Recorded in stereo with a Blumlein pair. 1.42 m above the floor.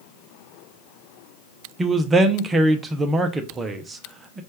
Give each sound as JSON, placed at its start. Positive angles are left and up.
{"t": 1.8, "sound": "a man speaking", "azimuth_deg": -15, "distance_m": 0.7}